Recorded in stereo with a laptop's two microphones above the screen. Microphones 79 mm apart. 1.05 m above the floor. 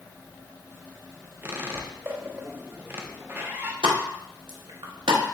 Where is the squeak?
25° right (ahead or behind), 0.5 m.